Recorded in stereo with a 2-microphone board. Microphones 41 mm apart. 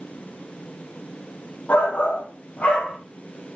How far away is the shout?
About 1.4 m.